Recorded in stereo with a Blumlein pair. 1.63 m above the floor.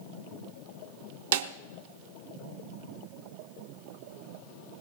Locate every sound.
1.3 s a snare drum: 55° right, 0.9 m